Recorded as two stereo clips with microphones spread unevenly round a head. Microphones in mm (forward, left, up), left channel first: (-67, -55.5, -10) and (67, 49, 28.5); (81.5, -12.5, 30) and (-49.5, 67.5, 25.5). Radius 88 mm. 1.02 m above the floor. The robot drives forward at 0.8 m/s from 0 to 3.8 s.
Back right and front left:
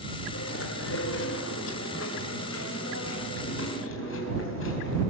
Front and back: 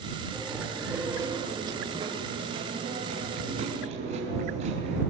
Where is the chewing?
120° right, 1.8 m; by 5.0 s 160° right, 4 m.